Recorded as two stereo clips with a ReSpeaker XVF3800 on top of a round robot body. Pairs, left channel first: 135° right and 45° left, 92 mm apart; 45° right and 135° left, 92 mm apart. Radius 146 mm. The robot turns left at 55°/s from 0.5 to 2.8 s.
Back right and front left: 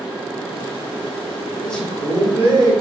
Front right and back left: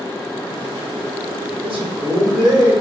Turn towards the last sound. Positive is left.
turn(degrees=85)